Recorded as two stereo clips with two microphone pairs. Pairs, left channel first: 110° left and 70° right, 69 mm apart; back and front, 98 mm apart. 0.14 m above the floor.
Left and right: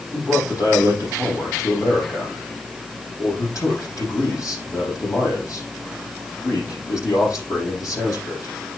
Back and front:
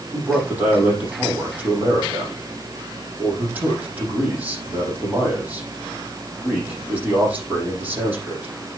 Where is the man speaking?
75° left, 6 m.